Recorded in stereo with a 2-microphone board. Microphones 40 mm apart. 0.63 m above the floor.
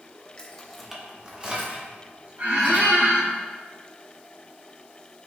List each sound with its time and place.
0.4 s keys jangling: 25° left (ahead or behind), 0.6 m; by 3.0 s 50° right (ahead or behind), 1.7 m
2.4 s a squeak: 65° right (ahead or behind), 1.9 m